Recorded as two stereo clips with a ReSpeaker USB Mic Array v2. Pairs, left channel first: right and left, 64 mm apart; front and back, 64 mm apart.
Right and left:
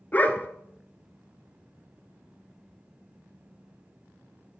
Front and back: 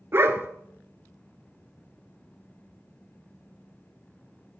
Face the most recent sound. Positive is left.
turn(degrees=-145)